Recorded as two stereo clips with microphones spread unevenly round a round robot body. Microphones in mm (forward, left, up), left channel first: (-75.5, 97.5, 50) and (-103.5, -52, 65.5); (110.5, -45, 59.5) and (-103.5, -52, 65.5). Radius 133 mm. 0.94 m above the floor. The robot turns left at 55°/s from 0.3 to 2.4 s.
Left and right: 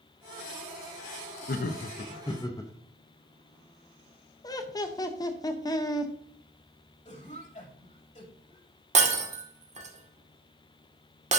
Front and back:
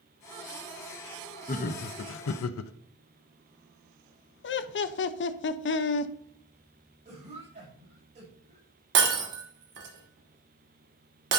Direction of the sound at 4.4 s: 20° left.